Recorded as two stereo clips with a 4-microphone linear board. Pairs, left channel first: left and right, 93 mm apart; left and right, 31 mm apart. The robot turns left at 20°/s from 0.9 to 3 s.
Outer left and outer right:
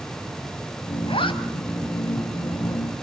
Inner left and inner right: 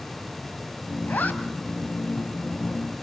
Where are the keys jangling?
No keys jangling in this recording.